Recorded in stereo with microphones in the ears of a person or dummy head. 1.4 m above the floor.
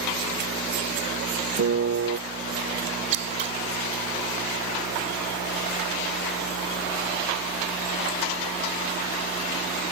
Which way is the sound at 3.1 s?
45° right (ahead or behind).